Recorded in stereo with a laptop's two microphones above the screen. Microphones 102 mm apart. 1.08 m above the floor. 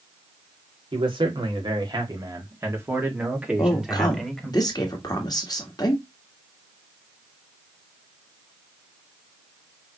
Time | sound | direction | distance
0.9 | a man speaking | 55° right (ahead or behind) | 2.5 m
3.6 | a woman speaking | 40° left (ahead or behind) | 1.5 m